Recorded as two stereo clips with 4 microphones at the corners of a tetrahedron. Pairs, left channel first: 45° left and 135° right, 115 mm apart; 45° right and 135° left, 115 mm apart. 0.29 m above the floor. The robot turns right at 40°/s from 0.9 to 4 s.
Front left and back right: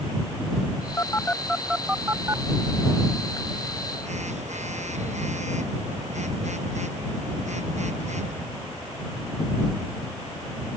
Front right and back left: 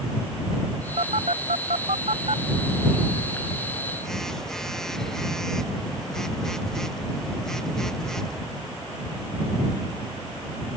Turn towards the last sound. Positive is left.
turn(degrees=-130)